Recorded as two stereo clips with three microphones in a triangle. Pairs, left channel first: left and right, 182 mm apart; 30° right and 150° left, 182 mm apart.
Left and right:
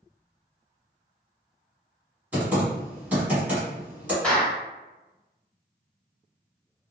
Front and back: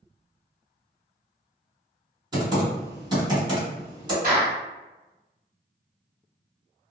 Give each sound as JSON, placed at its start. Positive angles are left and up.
{"t": 2.3, "sound": "typing on a keyboard", "azimuth_deg": -165, "distance_m": 1.8}
{"t": 4.2, "sound": "a clap", "azimuth_deg": 175, "distance_m": 1.8}